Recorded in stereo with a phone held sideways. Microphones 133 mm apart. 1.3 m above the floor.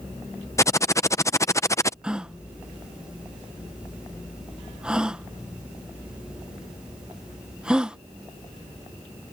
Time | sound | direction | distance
0.6 | typing on a keyboard | 20° left (ahead or behind) | ?
2.0 | a gasp | 5° right (ahead or behind) | ?